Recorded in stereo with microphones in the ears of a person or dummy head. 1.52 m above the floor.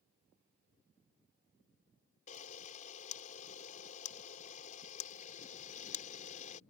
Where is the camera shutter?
45° left (ahead or behind).